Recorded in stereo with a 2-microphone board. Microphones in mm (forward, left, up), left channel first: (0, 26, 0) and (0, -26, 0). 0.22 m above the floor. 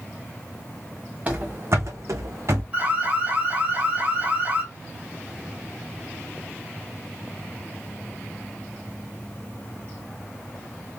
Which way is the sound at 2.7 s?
20° right (ahead or behind).